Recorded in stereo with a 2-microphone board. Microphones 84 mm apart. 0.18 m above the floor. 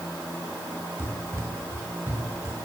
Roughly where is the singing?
No singing in this recording.